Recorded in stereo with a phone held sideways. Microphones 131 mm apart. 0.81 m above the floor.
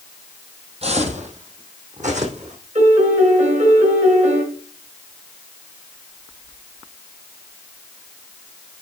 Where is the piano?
65° right (ahead or behind), 4 m.